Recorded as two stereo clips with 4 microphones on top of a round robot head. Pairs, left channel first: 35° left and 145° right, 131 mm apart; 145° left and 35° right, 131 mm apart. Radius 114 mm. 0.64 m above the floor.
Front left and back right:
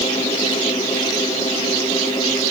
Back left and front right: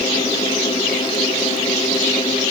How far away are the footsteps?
I don't hear footsteps.